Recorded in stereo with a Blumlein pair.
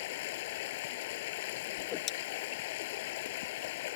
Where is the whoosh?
30° left.